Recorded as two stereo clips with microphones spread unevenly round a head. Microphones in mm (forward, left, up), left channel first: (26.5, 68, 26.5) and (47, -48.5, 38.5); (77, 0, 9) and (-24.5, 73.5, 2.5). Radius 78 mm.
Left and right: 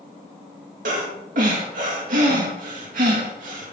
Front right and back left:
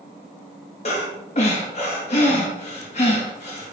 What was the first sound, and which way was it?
Breathing, 90° right.